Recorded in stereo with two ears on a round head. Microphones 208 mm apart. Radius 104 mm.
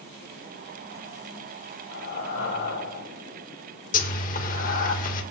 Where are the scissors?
I don't hear scissors.